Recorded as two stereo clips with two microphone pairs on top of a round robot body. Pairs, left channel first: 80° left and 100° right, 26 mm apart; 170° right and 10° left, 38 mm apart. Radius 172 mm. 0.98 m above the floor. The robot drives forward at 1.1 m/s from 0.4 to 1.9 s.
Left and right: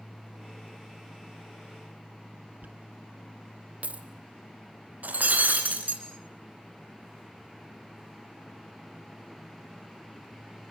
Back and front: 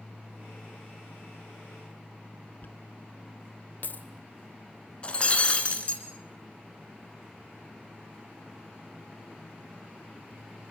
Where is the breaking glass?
110° right, 2.0 m.